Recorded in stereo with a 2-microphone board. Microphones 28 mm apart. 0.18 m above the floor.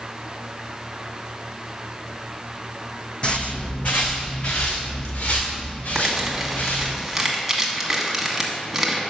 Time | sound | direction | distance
3.2 | footsteps | 35° left (ahead or behind) | 0.7 m
6.0 | crumpling | 5° right (ahead or behind) | 1.3 m